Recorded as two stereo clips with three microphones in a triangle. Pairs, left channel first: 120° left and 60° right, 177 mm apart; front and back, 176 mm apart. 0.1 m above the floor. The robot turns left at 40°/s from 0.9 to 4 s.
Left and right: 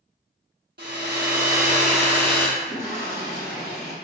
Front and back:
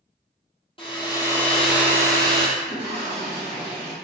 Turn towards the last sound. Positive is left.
turn(degrees=70)